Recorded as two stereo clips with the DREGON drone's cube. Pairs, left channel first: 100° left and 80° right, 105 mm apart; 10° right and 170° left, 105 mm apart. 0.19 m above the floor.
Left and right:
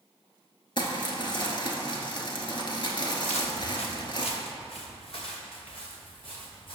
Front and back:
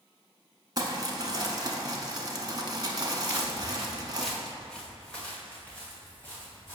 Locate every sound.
0.8 s crumpling: 125° left, 0.8 m
3.2 s footsteps: 100° left, 1.0 m; by 6.8 s 60° left, 3 m